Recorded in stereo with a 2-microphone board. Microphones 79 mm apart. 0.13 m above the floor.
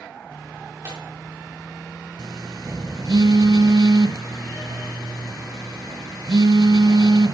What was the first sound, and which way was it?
Tearing paper, 45° right (ahead or behind).